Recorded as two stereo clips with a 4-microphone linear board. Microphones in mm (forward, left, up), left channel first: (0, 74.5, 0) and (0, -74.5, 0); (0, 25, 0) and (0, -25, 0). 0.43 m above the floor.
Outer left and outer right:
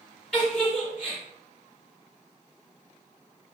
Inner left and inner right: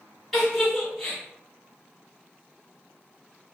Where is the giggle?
5° left (ahead or behind), 1.8 m.